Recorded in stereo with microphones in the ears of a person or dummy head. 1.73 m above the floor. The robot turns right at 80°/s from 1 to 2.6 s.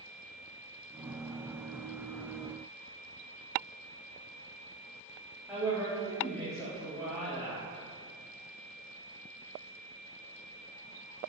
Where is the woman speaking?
5° right (ahead or behind), 0.8 m.